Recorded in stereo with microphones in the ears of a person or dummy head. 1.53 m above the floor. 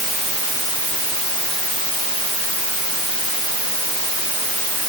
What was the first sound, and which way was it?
Only background noise.